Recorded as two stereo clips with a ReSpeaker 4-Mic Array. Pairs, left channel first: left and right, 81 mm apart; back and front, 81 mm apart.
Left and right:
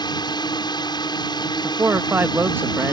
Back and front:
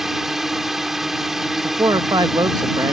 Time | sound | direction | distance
0.0 | a drone | 85° left | ?
1.6 | a man speaking | 30° right | ?